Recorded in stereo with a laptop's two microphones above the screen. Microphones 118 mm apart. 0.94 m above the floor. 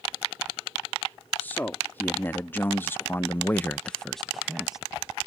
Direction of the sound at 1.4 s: 15° left (ahead or behind).